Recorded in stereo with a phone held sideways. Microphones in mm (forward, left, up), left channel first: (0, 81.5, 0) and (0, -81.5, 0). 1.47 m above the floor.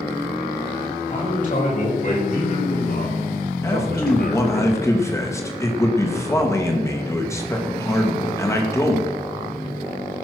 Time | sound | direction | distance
1.1 | a man speaking | 50° left (ahead or behind) | 5.5 m
3.6 | a man speaking | 15° left (ahead or behind) | 2.5 m